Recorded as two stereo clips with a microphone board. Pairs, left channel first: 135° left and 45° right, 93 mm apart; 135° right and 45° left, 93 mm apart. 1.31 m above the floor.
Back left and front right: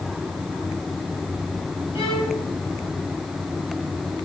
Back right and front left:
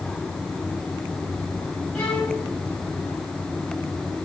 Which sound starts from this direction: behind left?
A violin, at 1.9 s.